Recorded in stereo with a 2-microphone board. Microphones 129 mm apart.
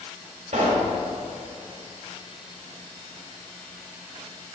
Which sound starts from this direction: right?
A pop, at 0.5 s.